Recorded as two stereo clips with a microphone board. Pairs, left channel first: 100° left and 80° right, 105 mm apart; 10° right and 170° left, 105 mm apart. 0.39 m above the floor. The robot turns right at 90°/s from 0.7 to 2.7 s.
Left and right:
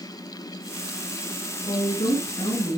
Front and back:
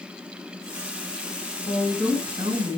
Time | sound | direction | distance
1.6 | a woman speaking | 60° left | 5.5 m